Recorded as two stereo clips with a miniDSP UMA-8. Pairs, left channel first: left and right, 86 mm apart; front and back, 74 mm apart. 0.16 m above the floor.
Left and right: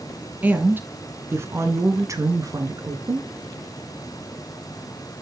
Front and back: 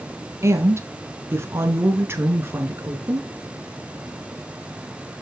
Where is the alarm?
I don't hear an alarm.